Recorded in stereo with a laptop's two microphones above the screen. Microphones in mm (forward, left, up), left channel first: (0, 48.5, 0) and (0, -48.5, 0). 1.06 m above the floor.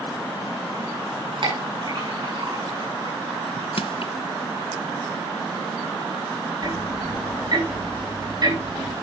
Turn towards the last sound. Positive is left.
turn(degrees=-45)  # may be behind; listen again after turning